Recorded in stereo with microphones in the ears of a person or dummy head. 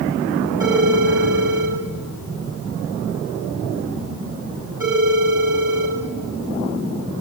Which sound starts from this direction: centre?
A phone ringing, at 0.6 s.